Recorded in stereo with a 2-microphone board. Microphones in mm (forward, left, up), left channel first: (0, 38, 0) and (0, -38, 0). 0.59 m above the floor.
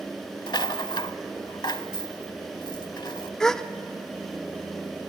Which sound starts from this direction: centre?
A gasp, at 3.4 s.